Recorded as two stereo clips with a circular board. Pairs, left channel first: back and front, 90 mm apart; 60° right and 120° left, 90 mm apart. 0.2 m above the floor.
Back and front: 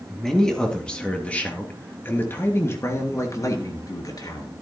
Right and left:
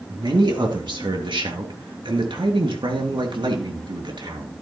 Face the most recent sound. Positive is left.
turn(degrees=145)